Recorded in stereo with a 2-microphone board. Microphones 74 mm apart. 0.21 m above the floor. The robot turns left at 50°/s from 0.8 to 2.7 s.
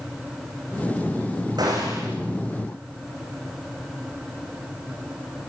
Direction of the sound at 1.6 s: 75° right (ahead or behind).